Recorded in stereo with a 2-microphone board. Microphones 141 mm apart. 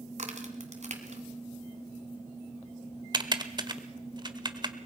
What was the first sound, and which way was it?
A crack, 55° right (ahead or behind).